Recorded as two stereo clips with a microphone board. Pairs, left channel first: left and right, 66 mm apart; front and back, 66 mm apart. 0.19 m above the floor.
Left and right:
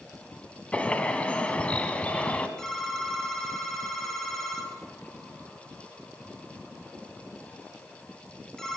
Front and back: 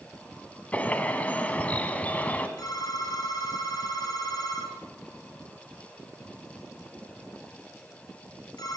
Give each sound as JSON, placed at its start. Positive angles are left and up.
{"t": 0.7, "sound": "a bird", "azimuth_deg": 40, "distance_m": 1.9}
{"t": 2.6, "sound": "a phone ringing", "azimuth_deg": 5, "distance_m": 3.0}